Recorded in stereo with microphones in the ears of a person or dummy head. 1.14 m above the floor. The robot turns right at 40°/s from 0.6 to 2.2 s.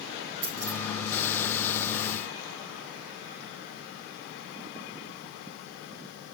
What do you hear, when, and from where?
0.4 s keys jangling: 55° right (ahead or behind), 5 m; by 0.8 s 50° right (ahead or behind), 5 m